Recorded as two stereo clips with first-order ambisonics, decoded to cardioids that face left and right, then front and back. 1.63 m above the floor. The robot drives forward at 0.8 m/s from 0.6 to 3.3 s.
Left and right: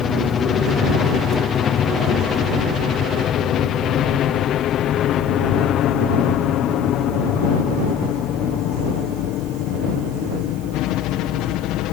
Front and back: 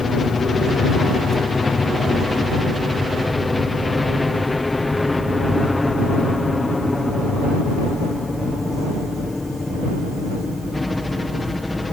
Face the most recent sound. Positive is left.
turn(degrees=80)